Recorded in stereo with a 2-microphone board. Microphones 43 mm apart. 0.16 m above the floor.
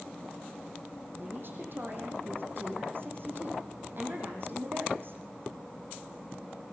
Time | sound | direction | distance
1.2 | a woman speaking | 55° right (ahead or behind) | 6.5 m